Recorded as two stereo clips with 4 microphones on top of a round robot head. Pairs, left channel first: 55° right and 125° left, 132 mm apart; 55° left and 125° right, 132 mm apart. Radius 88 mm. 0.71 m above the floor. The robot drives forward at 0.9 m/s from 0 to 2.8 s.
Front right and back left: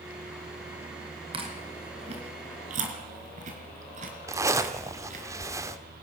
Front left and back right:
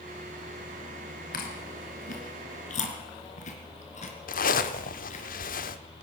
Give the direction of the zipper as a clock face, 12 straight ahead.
10 o'clock.